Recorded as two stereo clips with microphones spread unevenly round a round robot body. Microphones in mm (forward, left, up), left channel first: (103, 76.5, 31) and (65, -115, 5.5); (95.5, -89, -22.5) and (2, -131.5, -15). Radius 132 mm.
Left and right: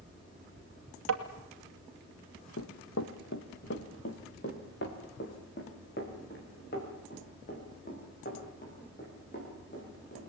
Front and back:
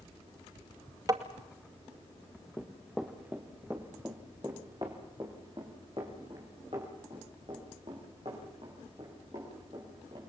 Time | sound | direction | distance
1.1 | tapping | 100° right | 2.5 m
2.6 | running footsteps | 110° left | 1.5 m